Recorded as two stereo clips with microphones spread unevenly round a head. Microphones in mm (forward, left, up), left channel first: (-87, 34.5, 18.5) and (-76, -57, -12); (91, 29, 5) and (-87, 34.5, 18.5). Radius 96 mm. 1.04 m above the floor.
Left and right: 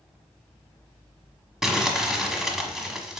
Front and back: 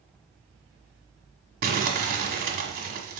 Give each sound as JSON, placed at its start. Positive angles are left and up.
{"t": 1.6, "sound": "crumpling", "azimuth_deg": 175, "distance_m": 1.3}